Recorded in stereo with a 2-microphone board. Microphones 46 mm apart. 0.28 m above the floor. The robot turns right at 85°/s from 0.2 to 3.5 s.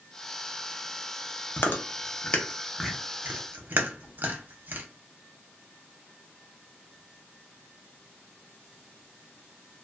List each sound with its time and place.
1.6 s chewing: 50° left (ahead or behind), 0.6 m; by 4.9 s 45° right (ahead or behind), 0.6 m